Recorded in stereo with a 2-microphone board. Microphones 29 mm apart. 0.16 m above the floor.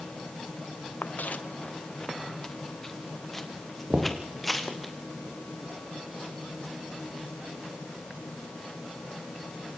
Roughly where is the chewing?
No chewing in this recording.